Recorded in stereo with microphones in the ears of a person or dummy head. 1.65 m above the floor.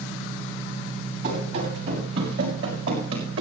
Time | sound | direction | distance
1.2 | running footsteps | 65° right (ahead or behind) | 5.5 m